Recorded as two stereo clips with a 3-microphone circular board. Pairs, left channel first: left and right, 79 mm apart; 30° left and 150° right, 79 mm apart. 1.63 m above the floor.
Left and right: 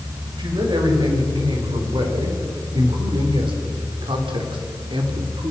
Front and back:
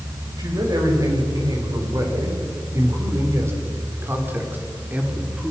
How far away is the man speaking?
About 6.5 m.